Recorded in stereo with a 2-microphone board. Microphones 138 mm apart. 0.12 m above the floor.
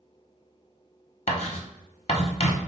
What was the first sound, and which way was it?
Writing, 55° left (ahead or behind).